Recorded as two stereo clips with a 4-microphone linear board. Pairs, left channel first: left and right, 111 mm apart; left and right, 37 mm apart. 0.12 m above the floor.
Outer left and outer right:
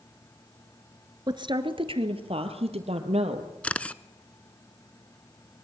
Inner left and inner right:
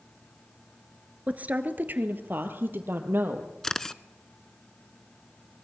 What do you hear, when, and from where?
1.3 s a woman speaking: 40° right (ahead or behind), 1.6 m; by 3.5 s 70° right (ahead or behind), 4 m
3.6 s a camera shutter: 15° left (ahead or behind), 0.6 m